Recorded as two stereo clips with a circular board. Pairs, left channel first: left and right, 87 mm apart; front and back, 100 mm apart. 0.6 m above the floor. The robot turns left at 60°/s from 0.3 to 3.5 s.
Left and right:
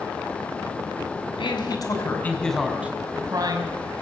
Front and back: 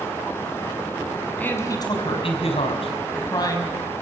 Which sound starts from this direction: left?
A man speaking, at 1.4 s.